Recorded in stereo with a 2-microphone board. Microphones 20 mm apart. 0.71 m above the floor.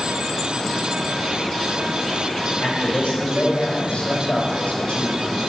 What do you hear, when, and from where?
2.6 s a man speaking: 75° left (ahead or behind), 3 m